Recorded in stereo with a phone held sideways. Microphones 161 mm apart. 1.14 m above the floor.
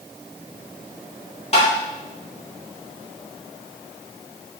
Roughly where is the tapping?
Left.